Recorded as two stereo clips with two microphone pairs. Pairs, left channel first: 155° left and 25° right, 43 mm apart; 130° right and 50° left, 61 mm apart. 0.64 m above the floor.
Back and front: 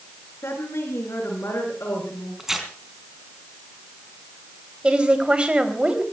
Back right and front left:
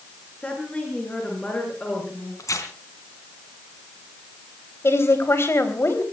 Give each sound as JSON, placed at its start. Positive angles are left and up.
{"t": 0.4, "sound": "a woman speaking", "azimuth_deg": 160, "distance_m": 8.5}
{"t": 2.4, "sound": "tearing paper", "azimuth_deg": -105, "distance_m": 3.5}
{"t": 4.8, "sound": "a woman speaking", "azimuth_deg": -90, "distance_m": 4.0}